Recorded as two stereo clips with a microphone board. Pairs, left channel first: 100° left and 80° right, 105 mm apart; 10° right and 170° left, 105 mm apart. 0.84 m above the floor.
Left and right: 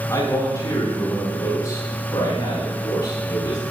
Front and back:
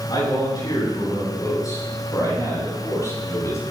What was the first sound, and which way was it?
A man speaking, 40° left.